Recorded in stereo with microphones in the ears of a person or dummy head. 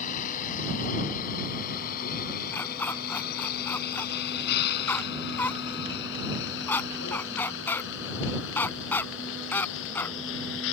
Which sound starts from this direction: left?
A vehicle, at 0.0 s.